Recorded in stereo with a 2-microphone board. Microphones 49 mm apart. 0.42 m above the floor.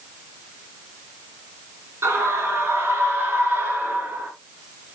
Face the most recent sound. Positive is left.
turn(degrees=-35)  # may be behind; listen again after turning